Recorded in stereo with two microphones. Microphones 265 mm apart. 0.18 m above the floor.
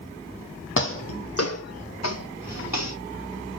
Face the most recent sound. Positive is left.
turn(degrees=85)